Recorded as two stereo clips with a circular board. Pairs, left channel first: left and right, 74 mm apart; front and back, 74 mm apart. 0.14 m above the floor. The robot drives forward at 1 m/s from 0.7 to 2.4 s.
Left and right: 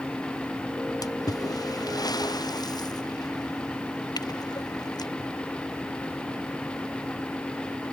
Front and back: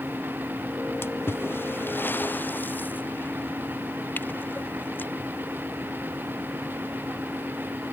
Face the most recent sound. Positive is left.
turn(degrees=65)